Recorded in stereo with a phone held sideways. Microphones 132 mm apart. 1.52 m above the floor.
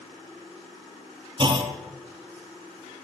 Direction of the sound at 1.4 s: 35° right (ahead or behind).